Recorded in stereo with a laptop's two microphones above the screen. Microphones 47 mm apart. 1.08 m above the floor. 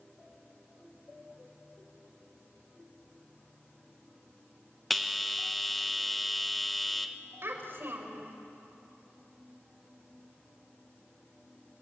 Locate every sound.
4.9 s a bell: centre (ahead or behind), 1.1 m
7.4 s a child speaking: 55° right (ahead or behind), 4 m